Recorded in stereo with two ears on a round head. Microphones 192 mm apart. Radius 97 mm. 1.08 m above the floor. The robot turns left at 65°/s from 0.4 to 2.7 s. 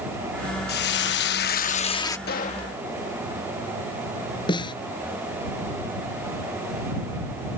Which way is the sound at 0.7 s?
115° left.